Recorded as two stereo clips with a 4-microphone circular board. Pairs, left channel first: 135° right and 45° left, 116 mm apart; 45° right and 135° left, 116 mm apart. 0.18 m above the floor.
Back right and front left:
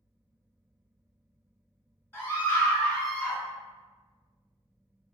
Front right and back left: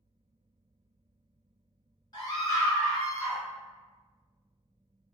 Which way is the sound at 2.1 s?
75° right.